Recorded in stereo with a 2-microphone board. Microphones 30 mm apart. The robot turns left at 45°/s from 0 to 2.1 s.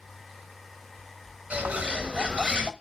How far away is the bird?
About 0.8 m.